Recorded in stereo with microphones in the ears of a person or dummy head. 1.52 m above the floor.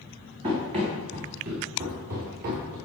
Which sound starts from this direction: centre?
Running footsteps, at 0.4 s.